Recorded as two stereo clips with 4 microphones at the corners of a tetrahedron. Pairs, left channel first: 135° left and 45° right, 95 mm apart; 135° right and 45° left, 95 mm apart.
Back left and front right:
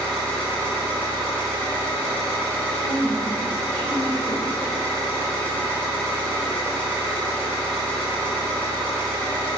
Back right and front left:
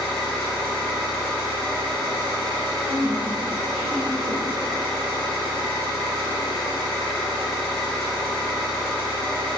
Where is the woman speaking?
145° right, 0.9 m.